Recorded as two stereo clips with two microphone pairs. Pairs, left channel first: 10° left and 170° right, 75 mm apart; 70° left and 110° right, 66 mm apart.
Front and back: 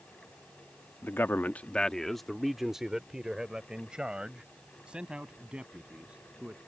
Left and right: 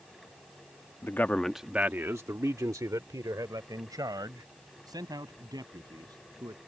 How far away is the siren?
I don't hear a siren.